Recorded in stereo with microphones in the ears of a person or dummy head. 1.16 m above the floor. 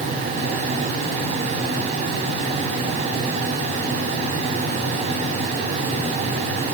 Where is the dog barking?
I don't hear a dog barking.